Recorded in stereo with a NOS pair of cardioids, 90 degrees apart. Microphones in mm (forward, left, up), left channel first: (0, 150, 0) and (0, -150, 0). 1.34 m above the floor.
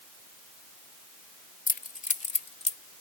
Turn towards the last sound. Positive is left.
turn(degrees=20)